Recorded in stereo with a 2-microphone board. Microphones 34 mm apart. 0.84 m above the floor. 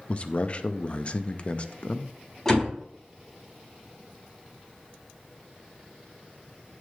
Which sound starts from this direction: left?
A man speaking, at 0.1 s.